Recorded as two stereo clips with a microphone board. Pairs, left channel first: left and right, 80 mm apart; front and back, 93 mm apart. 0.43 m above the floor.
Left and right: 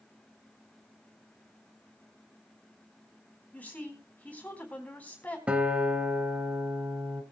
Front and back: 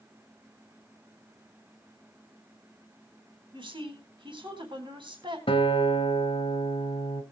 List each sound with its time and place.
3.5 s a woman speaking: 160° left, 3.5 m
5.5 s a guitar: 15° right, 1.9 m